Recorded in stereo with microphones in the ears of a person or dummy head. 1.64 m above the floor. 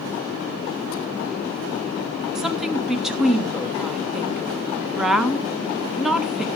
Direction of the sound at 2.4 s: 5° right (ahead or behind).